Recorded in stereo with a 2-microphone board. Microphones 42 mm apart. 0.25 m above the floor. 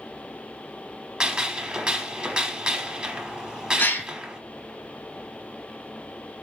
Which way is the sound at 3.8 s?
55° left (ahead or behind).